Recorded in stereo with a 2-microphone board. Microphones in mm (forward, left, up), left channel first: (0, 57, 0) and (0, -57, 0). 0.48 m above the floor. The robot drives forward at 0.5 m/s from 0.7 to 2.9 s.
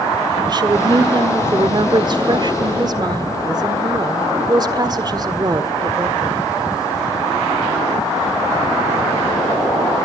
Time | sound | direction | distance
0.5 | a woman speaking | 35° right (ahead or behind) | 1.5 m